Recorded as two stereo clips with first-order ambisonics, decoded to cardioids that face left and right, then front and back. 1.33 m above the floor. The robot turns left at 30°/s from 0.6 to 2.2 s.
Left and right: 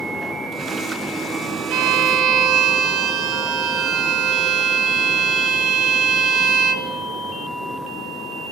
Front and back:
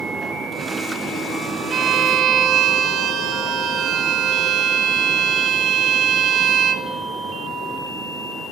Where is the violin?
115° right, 1.1 m; by 6.9 s 130° right, 1.1 m.